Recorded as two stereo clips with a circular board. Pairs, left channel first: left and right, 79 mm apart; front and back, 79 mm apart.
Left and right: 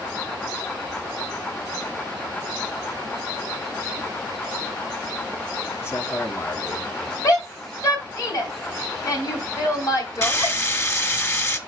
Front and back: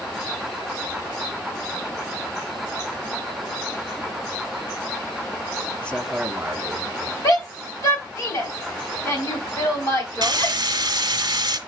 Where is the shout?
45° left, 3 m.